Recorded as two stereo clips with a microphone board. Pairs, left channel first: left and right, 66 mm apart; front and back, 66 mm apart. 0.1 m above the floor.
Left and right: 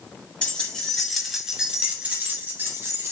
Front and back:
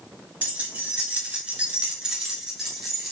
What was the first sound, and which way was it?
Keys jangling, 140° left.